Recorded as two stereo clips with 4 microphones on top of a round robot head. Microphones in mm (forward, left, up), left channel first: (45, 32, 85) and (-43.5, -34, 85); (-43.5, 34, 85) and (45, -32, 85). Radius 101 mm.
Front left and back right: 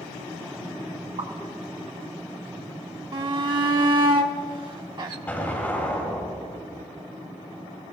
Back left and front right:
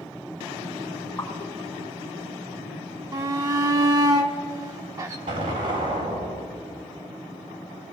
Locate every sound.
1.2 s a pop: 155° right, 2.5 m
3.1 s a shout: 95° right, 1.0 m
5.3 s an explosion: 35° right, 3.5 m